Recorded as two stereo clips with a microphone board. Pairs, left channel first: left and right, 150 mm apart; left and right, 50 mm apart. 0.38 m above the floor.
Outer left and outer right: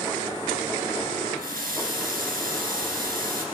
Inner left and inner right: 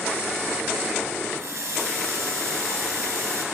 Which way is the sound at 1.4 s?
75° right (ahead or behind).